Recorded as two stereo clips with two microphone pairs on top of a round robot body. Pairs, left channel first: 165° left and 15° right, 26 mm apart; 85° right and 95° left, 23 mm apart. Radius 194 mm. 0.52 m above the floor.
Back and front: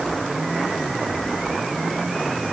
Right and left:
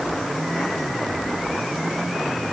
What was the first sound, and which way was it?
Only background noise.